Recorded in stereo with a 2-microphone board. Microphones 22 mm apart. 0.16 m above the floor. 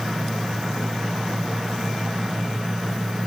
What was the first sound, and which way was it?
Only background noise.